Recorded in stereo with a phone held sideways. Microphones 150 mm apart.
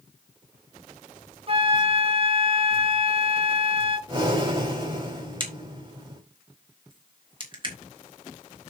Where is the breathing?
35° right (ahead or behind), 5.5 m.